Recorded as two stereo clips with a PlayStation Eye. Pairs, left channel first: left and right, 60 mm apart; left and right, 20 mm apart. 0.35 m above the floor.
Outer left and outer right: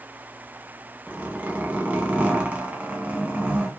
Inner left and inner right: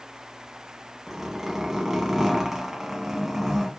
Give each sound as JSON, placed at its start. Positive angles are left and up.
{"t": 1.1, "sound": "a zipper", "side_deg": -25, "distance_m": 0.8}